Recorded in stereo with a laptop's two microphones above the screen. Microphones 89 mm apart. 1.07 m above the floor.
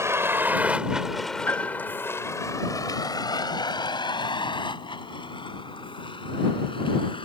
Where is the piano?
25° left (ahead or behind).